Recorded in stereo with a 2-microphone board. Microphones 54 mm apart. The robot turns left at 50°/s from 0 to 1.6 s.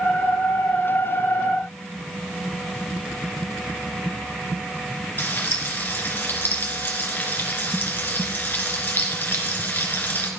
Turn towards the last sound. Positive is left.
turn(degrees=35)  # may be behind; listen again after turning